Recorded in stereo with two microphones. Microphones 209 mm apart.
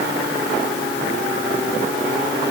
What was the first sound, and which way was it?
Only background noise.